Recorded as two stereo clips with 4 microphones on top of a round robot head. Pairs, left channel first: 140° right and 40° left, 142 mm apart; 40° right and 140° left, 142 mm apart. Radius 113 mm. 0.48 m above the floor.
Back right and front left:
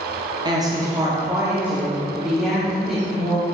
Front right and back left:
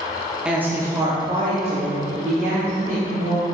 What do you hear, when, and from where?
0.5 s a woman speaking: 60° left, 1.2 m; by 3.5 s 130° left, 2.5 m